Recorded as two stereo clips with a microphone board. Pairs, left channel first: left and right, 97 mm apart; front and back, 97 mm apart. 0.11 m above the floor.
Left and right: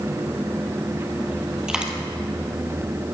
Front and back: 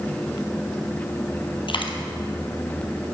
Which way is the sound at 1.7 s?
10° right.